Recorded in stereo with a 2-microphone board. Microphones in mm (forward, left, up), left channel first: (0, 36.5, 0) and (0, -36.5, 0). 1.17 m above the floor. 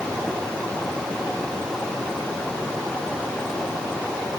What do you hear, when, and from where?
Only background noise.